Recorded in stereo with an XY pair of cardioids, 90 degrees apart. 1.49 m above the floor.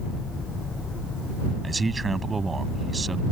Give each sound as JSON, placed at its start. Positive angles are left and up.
{"t": 1.6, "sound": "a man speaking", "azimuth_deg": -35}